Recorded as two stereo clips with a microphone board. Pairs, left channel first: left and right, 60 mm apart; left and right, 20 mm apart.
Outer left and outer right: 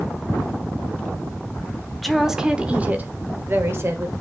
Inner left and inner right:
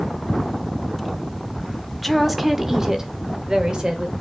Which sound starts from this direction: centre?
A woman speaking, at 2.0 s.